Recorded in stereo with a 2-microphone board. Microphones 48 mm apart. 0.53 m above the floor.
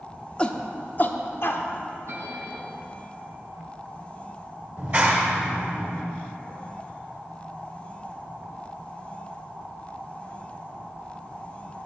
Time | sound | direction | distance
0.4 | a shout | 20° left (ahead or behind) | 0.6 m
2.1 | a bell | 75° right (ahead or behind) | 2 m
4.8 | a clap | 35° right (ahead or behind) | 1.5 m